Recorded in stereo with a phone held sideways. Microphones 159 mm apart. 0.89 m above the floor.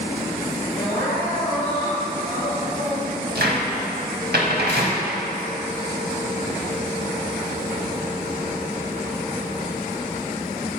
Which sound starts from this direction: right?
A cupboard door, at 3.4 s.